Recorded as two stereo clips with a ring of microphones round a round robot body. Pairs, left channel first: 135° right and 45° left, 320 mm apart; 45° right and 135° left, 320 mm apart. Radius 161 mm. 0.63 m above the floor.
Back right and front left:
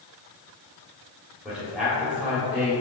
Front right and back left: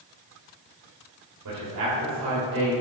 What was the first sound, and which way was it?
A man speaking, 135° left.